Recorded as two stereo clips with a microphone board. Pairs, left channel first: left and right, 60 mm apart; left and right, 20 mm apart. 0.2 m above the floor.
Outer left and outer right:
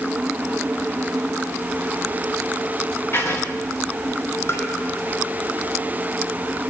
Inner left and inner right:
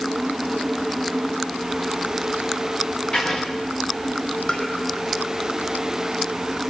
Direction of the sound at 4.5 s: 50° left (ahead or behind).